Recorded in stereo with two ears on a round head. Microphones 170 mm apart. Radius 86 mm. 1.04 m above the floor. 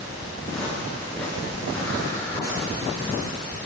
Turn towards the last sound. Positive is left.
turn(degrees=15)  # may be behind; listen again after turning